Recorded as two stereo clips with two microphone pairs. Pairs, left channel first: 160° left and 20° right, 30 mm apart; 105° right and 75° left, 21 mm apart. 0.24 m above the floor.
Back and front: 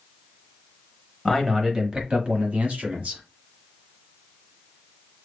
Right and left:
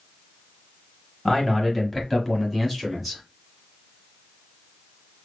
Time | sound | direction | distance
1.2 | a man speaking | 115° right | 0.9 m